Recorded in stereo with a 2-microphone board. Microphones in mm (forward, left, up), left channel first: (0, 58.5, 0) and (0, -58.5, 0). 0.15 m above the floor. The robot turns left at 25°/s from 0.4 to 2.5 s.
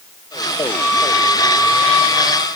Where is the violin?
155° left, 4.5 m; by 2.5 s 110° left, 4.5 m.